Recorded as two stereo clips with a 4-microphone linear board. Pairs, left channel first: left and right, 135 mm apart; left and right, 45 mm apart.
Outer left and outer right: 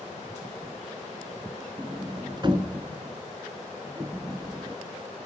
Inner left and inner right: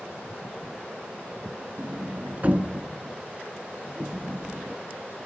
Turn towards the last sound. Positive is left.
turn(degrees=-35)  # may be behind; listen again after turning